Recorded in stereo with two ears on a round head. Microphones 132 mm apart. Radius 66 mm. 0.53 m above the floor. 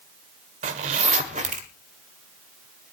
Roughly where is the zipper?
Right.